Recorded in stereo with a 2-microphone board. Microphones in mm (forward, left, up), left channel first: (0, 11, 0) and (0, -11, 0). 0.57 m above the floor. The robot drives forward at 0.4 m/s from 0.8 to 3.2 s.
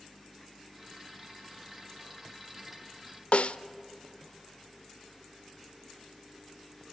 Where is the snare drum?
75° left (ahead or behind), 0.5 m.